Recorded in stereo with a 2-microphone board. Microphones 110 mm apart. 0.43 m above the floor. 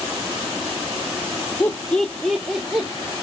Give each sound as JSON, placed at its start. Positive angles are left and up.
{"t": 1.6, "sound": "laughter", "side_deg": 20, "distance_m": 0.8}